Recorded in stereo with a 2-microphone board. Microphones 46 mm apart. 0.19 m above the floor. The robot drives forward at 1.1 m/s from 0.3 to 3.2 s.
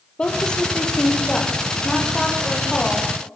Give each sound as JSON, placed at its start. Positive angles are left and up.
{"t": 0.2, "sound": "a woman speaking", "side_deg": 20, "distance_m": 4.5}